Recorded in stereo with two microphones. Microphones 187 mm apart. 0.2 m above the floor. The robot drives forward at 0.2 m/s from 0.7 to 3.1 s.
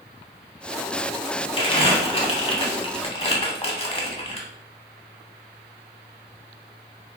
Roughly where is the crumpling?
Left.